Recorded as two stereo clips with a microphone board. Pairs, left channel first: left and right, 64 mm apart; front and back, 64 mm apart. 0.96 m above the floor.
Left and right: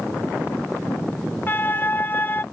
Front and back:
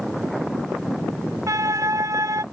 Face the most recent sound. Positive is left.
turn(degrees=150)